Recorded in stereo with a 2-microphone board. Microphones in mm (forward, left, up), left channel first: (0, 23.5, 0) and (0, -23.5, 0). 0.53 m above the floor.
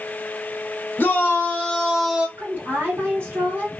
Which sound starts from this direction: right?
A woman speaking, at 2.4 s.